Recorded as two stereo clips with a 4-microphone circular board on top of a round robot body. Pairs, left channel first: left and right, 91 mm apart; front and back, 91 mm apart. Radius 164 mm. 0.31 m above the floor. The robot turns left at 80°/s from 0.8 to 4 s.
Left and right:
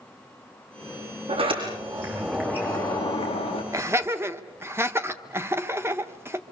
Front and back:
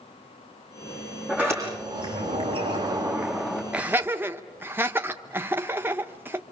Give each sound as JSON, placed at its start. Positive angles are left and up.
{"t": 1.3, "sound": "a sliding door", "azimuth_deg": -100, "distance_m": 7.0}
{"t": 3.7, "sound": "laughter", "azimuth_deg": -110, "distance_m": 1.4}